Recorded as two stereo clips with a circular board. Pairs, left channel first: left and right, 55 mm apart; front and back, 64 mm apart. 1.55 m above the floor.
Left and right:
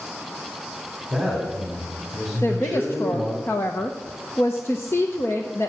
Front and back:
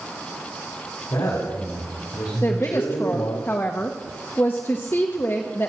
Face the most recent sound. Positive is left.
turn(degrees=55)